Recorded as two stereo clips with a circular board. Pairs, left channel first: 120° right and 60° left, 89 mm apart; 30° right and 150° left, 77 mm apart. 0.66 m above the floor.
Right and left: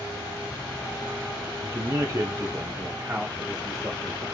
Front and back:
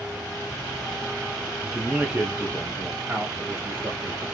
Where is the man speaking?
60° left, 0.6 m; by 4.2 s 120° left, 1.6 m.